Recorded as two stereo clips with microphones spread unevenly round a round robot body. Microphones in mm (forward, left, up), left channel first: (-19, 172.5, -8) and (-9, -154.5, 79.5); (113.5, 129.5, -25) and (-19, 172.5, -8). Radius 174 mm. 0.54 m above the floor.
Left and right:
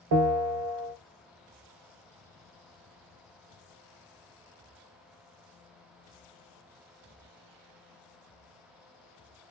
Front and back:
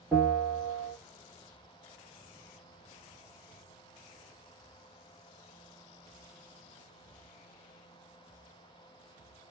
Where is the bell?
115° right, 0.6 m.